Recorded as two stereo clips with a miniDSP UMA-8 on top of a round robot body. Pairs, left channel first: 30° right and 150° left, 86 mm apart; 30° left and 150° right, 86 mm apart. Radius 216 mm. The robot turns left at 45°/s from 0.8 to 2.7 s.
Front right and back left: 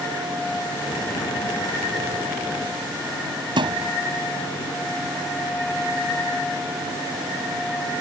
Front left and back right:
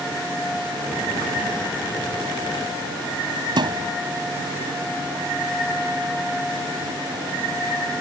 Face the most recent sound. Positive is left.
turn(degrees=175)